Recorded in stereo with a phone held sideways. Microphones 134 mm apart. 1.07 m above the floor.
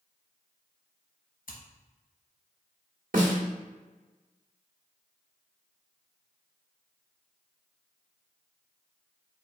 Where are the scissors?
75° left (ahead or behind), 1.0 m.